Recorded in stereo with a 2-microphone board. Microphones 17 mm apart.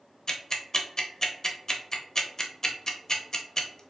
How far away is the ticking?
About 0.6 m.